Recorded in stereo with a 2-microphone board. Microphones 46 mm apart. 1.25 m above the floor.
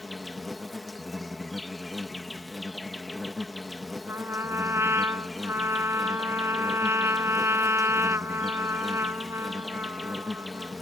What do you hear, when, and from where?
0.0 s an insect: 5° left (ahead or behind)
4.1 s a trumpet: 65° right (ahead or behind)